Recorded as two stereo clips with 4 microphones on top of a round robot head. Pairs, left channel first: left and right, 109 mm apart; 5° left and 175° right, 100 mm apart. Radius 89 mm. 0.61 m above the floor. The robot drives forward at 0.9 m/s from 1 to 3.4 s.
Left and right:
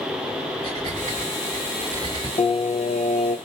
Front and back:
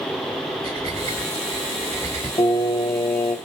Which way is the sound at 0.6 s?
140° right.